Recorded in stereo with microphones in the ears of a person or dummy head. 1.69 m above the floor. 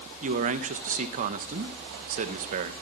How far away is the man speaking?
About 1.2 m.